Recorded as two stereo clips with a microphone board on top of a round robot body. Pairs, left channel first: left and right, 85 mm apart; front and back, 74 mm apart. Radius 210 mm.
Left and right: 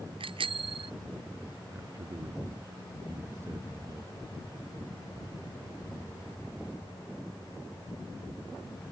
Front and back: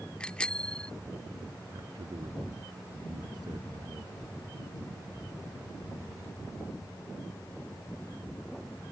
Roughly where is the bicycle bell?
Right.